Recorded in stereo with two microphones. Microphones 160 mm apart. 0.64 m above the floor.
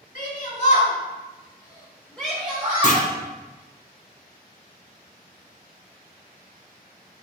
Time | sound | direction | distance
0.1 | a shout | 55° left (ahead or behind) | 1.8 m
2.8 | a clunk | 55° left (ahead or behind) | 0.7 m